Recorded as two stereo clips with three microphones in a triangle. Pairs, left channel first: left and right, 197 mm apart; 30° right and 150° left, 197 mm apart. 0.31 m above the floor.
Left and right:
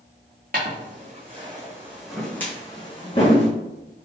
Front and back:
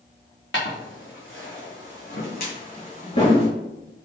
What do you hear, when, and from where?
0.5 s footsteps: 45° right, 1.6 m; by 3.5 s 35° left, 1.7 m